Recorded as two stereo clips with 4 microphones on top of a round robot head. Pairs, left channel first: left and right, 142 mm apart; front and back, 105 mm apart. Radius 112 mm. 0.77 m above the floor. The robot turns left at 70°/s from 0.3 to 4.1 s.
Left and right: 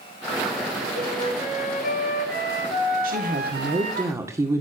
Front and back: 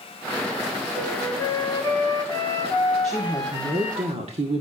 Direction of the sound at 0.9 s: 100° left.